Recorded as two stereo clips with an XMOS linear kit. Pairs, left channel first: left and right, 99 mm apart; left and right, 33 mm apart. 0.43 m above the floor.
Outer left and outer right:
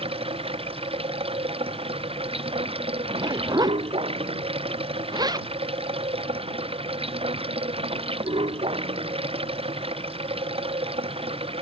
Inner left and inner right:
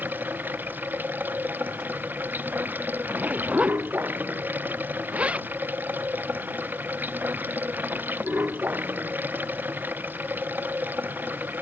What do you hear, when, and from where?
0.0 s running water: 75° right (ahead or behind)
3.0 s a zipper: 45° right (ahead or behind)